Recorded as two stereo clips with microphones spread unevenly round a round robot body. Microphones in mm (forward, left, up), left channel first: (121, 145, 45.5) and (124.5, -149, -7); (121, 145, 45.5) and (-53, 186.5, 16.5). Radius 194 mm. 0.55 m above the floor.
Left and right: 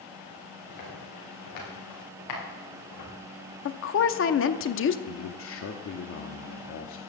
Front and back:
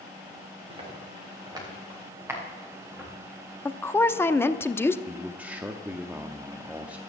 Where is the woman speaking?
70° left, 0.7 m.